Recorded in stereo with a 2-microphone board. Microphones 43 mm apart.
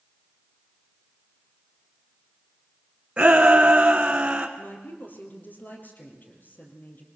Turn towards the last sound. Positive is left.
turn(degrees=45)  # may be behind; listen again after turning